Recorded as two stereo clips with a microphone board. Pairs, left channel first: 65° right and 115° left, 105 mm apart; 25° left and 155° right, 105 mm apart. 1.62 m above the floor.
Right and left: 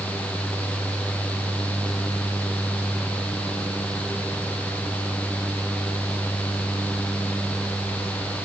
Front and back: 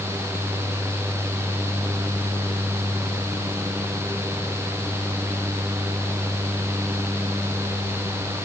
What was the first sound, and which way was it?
Only background noise.